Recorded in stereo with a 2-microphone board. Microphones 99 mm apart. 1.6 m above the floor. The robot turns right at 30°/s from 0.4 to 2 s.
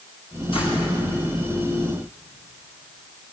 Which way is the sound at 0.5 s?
70° left (ahead or behind).